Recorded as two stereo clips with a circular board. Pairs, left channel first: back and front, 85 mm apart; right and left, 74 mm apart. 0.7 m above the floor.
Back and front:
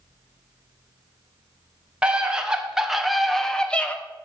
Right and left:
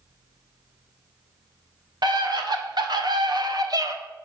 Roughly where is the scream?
Left.